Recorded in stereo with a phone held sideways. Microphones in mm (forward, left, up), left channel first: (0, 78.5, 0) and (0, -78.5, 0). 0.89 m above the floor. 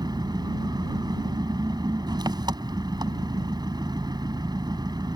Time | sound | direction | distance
0.0 | an engine running | 25° right (ahead or behind) | ?